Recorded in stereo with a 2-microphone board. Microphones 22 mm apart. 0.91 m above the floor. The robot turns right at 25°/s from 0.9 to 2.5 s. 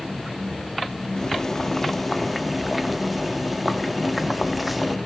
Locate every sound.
1.2 s boiling: 150° left, 1.3 m; by 5.0 s straight behind, 1.3 m